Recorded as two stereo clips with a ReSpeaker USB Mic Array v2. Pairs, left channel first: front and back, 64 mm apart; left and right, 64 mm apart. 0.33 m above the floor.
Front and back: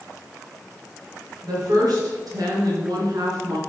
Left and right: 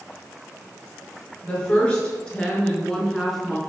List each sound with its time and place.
1.4 s a woman speaking: 160° left, 4.5 m; by 3.6 s straight behind, 3 m